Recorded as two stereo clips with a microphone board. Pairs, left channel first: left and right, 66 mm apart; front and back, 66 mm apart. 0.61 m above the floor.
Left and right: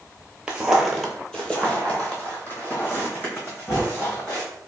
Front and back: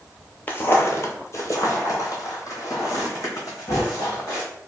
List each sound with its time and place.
0.5 s footsteps: 30° right, 0.7 m; by 4.5 s 40° left, 2.5 m